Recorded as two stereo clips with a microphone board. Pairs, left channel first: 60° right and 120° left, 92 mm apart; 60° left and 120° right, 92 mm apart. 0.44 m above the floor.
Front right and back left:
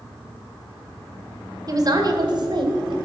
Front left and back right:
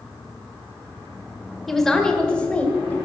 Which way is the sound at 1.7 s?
150° left.